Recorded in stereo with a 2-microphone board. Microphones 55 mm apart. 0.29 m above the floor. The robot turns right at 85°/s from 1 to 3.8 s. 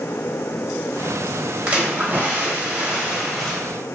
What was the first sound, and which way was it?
A splash, 140° right.